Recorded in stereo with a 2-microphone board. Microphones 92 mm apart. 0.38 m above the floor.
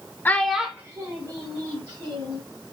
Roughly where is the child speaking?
Left.